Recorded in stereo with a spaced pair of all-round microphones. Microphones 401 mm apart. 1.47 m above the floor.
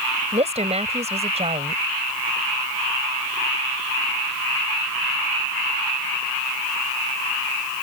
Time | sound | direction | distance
0.3 | a woman speaking | 15° right (ahead or behind) | ?